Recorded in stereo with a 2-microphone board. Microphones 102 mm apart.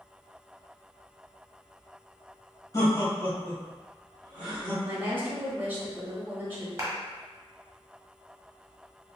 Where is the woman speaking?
20° right (ahead or behind), 0.9 m.